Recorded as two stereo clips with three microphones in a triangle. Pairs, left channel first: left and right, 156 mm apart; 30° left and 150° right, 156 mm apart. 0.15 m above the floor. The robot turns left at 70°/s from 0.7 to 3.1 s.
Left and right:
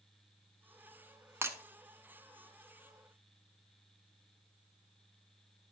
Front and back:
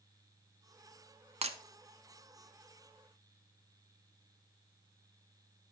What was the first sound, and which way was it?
Breaking glass, 155° right.